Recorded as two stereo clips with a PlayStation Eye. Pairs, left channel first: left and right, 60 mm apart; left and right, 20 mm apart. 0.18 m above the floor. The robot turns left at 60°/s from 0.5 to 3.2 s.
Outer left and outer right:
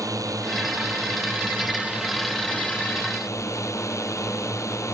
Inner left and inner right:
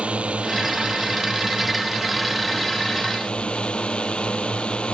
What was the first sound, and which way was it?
A drone, 80° right.